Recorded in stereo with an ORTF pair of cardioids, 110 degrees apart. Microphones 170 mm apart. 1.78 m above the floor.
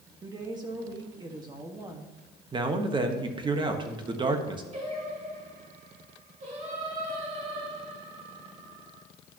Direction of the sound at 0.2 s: 25° right.